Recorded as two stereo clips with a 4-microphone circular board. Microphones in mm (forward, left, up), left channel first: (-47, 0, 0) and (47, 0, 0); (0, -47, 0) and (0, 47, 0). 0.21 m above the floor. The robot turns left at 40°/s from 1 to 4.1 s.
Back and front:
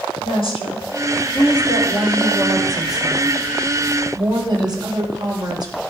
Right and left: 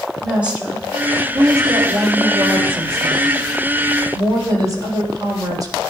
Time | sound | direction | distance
0.2 | a woman speaking | 165° left | 7 m